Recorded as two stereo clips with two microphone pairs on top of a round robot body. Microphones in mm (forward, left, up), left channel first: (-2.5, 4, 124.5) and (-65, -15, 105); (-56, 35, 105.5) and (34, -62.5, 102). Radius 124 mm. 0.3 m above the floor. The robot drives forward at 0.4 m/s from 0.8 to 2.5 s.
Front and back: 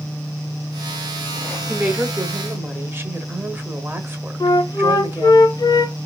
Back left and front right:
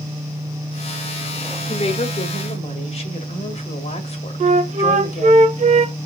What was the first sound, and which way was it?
A woman speaking, 155° left.